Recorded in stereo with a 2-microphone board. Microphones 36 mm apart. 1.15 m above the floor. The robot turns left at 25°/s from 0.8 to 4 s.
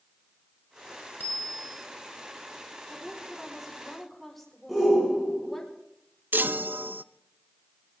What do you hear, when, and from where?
1.2 s a bicycle bell: 70° left (ahead or behind), 3.5 m; by 1.8 s 55° left (ahead or behind), 3.5 m
2.9 s a woman speaking: 20° right (ahead or behind), 4.5 m; by 5.7 s 5° left (ahead or behind), 4.5 m
4.7 s a shout: 10° right (ahead or behind), 6.5 m
6.3 s a chime: 75° right (ahead or behind), 0.5 m